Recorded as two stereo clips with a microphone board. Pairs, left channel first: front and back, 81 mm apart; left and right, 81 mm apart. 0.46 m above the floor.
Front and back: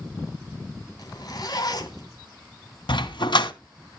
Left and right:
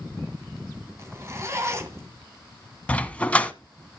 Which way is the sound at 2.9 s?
15° left.